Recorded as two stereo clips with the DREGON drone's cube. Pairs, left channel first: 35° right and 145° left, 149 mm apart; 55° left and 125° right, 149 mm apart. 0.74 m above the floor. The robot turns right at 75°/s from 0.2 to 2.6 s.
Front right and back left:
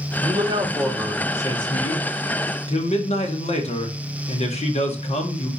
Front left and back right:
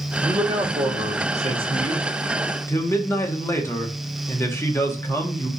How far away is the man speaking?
About 1.0 m.